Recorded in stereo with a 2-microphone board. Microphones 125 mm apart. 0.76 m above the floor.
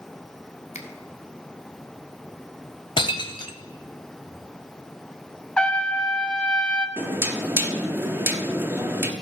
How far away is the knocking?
About 0.9 m.